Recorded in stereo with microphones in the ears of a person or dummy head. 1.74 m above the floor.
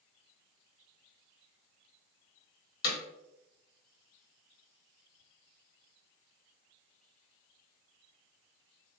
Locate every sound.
2.8 s hammering: 55° left (ahead or behind), 1.1 m